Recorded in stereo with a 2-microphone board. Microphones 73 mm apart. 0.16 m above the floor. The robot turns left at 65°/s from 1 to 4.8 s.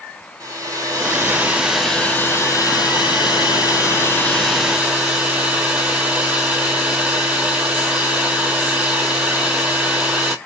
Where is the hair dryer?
130° right, 0.7 m; by 10.3 s 15° right, 0.7 m.